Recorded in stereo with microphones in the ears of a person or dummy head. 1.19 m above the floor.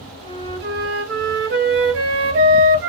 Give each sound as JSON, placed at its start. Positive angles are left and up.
{"t": 0.2, "sound": "a flute", "side_deg": -55, "distance_m": 1.0}